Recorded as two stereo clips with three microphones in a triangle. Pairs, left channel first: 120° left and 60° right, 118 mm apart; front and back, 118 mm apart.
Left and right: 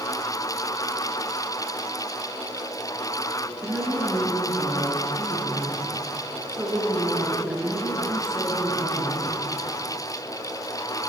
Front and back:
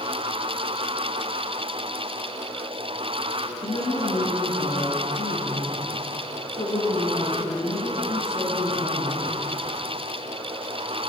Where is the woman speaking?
25° left, 6.5 m.